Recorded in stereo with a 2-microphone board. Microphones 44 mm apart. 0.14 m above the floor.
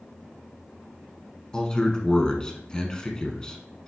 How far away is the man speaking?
About 1.3 m.